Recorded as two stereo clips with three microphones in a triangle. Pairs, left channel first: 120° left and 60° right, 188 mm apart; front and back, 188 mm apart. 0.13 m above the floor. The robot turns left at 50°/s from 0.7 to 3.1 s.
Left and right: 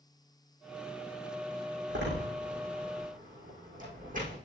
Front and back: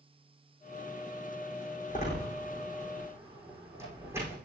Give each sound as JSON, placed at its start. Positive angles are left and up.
{"t": 1.9, "sound": "a door slam", "azimuth_deg": -40, "distance_m": 5.0}